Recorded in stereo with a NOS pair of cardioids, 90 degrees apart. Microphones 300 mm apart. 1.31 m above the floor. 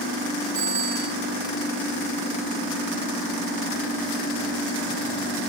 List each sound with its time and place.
0.6 s a bicycle bell: 65° right, 8.5 m